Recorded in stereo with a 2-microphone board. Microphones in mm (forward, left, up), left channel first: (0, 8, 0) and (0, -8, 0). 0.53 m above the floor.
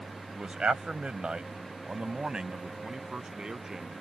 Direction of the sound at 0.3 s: 65° right (ahead or behind).